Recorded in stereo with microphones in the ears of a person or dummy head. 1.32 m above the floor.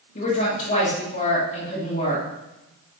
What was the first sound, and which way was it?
A woman speaking, 35° left (ahead or behind).